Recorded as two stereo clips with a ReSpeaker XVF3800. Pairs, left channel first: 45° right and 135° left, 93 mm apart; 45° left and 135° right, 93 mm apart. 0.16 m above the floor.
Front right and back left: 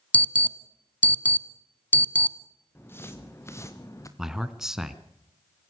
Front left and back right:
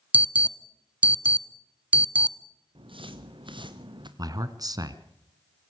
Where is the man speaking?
140° right, 1.8 m.